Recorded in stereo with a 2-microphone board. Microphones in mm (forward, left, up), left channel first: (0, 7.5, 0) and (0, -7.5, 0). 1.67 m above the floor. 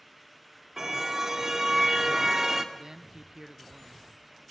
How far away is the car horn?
About 2.5 m.